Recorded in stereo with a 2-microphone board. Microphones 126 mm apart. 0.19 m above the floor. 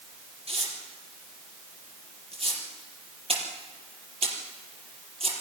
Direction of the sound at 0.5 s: 55° right (ahead or behind).